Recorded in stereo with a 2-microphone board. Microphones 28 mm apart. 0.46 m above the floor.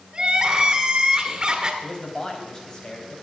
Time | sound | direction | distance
0.1 | crying | 30° right (ahead or behind) | 1.7 m
1.8 | a man speaking | 30° left (ahead or behind) | 3.5 m